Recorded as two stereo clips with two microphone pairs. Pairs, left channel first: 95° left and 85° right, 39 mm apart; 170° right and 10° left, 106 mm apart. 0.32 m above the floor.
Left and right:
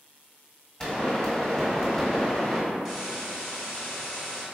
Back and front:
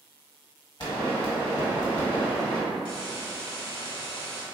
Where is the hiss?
160° right, 1.7 m.